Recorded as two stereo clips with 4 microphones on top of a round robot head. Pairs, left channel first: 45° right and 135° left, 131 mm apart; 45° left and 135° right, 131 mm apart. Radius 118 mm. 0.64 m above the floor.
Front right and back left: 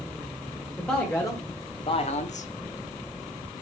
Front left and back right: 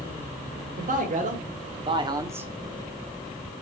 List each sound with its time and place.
0.8 s a man speaking: 120° right, 2.5 m; by 2.5 s 60° right, 1.5 m